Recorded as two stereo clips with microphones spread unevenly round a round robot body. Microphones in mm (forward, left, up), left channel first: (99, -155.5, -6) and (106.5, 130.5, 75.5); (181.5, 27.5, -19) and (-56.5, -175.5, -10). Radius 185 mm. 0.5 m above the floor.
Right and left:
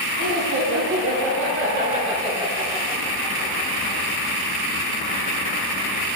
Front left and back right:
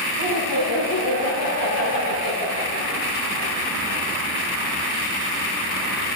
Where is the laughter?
75° left, 2.5 m; by 4.0 s 25° right, 3 m.